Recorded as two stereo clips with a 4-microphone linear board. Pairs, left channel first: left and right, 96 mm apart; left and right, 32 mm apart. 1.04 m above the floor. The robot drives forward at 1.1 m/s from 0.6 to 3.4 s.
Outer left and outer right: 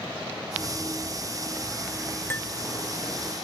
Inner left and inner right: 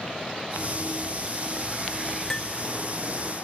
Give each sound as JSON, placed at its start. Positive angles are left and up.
{"t": 0.6, "sound": "running footsteps", "side_deg": -15, "distance_m": 5.0}
{"t": 2.3, "sound": "cutlery clinking", "side_deg": 20, "distance_m": 0.7}